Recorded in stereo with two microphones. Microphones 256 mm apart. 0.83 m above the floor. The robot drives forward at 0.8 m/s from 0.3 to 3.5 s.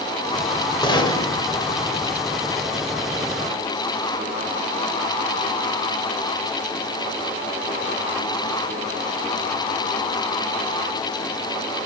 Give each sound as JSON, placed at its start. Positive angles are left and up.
{"t": 0.8, "sound": "a gunshot", "side_deg": 20, "distance_m": 1.8}